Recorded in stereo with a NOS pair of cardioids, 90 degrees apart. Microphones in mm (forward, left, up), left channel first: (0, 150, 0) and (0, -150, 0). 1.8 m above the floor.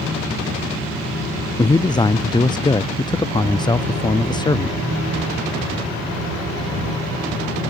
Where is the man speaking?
15° left.